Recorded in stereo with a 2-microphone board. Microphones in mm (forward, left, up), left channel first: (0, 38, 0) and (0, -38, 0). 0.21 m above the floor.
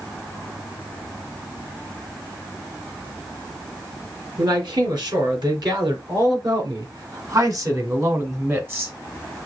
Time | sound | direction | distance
4.4 | a man speaking | 70° right (ahead or behind) | 3 m